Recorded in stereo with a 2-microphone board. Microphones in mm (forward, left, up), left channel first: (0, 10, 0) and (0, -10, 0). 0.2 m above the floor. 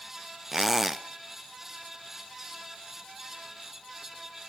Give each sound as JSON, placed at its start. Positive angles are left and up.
{"t": 0.5, "sound": "a squeak", "side_deg": -10, "distance_m": 0.7}